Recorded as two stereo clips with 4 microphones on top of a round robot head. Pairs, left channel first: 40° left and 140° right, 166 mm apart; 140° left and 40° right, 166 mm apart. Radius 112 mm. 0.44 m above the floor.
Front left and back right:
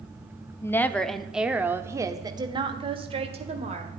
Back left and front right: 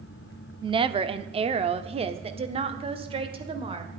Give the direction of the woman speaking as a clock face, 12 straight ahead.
1 o'clock.